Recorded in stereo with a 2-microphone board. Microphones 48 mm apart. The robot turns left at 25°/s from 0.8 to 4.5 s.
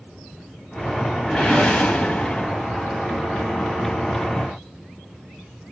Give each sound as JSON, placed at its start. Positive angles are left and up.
{"t": 1.3, "sound": "a whoosh", "azimuth_deg": 160, "distance_m": 1.5}